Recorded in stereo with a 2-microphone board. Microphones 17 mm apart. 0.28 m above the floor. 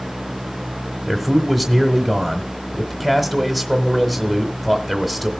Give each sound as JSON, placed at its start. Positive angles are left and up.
{"t": 1.1, "sound": "a man speaking", "side_deg": -10, "distance_m": 1.2}